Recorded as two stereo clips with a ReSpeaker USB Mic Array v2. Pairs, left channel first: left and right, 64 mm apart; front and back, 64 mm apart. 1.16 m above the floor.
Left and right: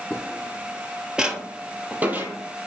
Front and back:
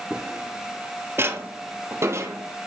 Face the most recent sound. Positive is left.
turn(degrees=-150)